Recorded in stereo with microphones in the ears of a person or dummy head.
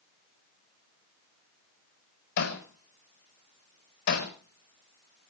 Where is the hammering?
70° left (ahead or behind), 4.5 m.